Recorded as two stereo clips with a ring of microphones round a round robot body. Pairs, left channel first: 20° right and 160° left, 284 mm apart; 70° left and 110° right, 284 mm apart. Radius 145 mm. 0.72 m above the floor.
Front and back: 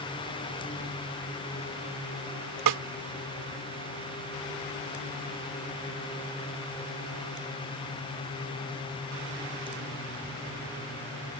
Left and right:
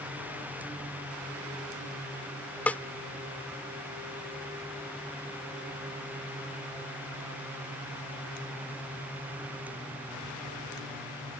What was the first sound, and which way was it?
A snare drum, 150° left.